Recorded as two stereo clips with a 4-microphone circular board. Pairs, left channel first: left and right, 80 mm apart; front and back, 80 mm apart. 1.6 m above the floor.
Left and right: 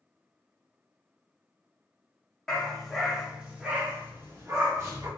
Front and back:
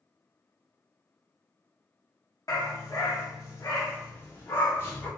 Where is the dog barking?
10° left, 1.4 m; by 5.1 s 50° right, 1.7 m.